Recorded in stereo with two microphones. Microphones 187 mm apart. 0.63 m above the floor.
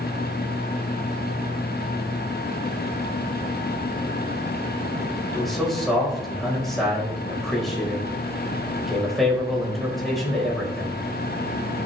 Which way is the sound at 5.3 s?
Centre (ahead or behind).